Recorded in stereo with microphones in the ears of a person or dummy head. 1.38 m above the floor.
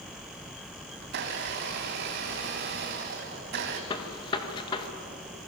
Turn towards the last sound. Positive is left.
turn(degrees=25)  # may be behind; listen again after turning